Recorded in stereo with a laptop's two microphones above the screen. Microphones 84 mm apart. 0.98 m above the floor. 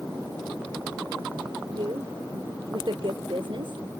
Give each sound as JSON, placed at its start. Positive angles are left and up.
{"t": 1.7, "sound": "a woman speaking", "side_deg": -70}